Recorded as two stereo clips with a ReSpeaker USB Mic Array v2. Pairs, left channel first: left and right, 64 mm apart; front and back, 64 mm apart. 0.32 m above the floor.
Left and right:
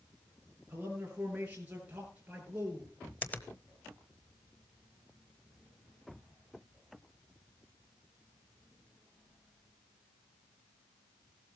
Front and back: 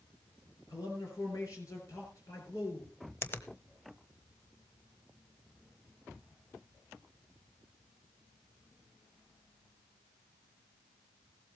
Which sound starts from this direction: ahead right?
A man speaking, at 0.7 s.